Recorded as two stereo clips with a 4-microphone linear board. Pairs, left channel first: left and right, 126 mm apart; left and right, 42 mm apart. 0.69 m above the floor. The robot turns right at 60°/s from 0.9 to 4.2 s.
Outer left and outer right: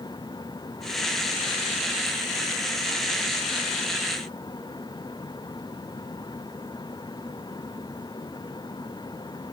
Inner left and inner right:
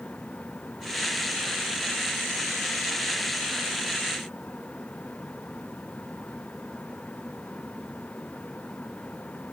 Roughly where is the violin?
No violin in this recording.